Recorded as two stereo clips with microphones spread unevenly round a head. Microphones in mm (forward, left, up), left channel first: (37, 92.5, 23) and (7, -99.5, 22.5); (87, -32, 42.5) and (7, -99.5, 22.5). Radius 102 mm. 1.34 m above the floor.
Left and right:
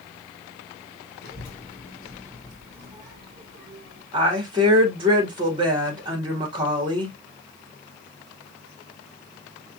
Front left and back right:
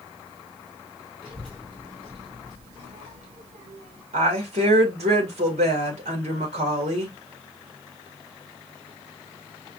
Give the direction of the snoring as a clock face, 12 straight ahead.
No snoring in this recording.